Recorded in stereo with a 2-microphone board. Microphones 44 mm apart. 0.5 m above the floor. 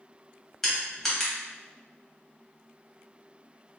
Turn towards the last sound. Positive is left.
turn(degrees=5)  # may be behind; listen again after turning